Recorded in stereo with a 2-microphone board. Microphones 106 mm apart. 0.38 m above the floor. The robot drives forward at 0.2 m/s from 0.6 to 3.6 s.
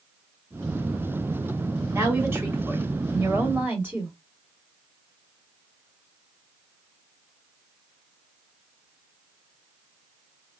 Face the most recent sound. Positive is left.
turn(degrees=-20)  # may be behind; listen again after turning